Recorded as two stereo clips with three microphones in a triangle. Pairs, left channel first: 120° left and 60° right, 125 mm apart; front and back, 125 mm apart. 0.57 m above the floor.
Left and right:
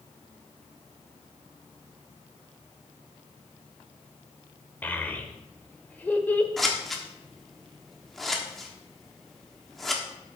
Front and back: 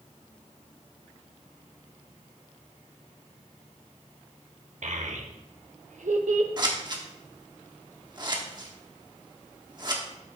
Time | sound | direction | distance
4.8 | a child speaking | 165° right | 1.1 m
6.6 | scissors | 150° right | 1.2 m